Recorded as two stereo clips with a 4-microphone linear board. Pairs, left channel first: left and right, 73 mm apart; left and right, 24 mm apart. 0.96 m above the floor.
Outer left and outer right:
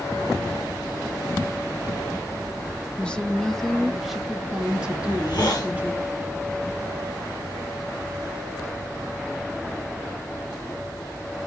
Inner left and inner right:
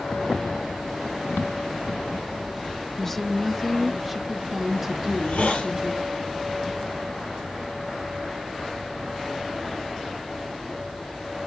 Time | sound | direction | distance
3.0 | a woman speaking | 15° left (ahead or behind) | 1.4 m
5.0 | a hiss | 80° left | 5 m